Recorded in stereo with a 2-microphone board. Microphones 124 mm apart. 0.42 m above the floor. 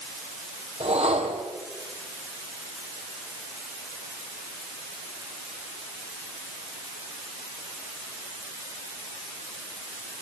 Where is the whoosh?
55° right (ahead or behind), 3.5 m.